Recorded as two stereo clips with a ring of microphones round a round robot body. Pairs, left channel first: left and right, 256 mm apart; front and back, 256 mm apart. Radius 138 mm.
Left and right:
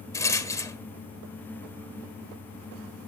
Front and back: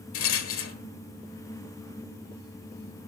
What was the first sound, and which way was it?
A rattle, 15° left.